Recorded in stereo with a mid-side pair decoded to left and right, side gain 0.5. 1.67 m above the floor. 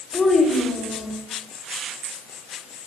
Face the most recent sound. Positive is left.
turn(degrees=30)